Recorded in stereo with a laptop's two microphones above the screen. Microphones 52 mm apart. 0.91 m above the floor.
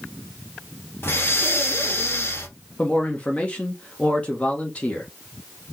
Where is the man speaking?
25° left (ahead or behind), 1.0 m.